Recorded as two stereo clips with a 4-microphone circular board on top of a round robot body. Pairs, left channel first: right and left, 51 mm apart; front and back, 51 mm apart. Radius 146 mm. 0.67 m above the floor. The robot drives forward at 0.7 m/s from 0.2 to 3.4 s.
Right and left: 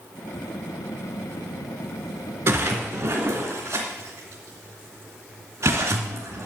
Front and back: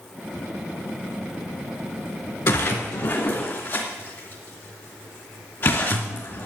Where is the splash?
40° left, 3 m; by 6.5 s 50° left, 3 m.